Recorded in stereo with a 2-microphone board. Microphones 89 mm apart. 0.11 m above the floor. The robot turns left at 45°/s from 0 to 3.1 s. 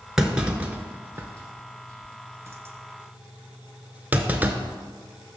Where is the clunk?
5° right (ahead or behind), 0.6 m; by 4.6 s 20° right (ahead or behind), 0.6 m.